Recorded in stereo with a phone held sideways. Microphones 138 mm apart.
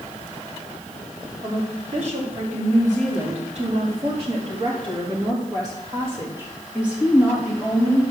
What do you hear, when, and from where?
1.4 s a woman speaking: 70° right (ahead or behind), 4 m; by 8.0 s centre (ahead or behind), 3.5 m